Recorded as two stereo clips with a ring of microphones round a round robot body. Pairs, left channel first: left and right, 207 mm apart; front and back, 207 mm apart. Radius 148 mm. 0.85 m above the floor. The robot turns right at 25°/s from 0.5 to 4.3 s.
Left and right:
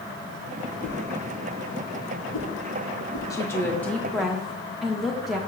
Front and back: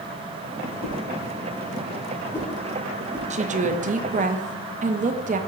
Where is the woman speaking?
155° left, 0.6 m; by 5.4 s straight behind, 0.6 m.